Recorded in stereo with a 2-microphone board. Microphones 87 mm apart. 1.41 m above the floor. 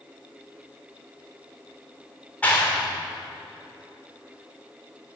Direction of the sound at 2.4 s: 20° left (ahead or behind).